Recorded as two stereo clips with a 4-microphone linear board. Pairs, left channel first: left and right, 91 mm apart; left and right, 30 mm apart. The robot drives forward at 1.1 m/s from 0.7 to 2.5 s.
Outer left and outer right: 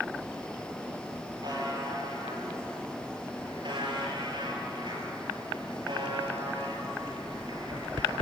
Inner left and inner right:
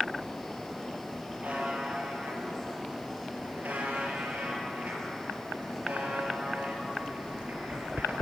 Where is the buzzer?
45° right (ahead or behind), 5.5 m; by 8.1 s 55° right (ahead or behind), 4.5 m.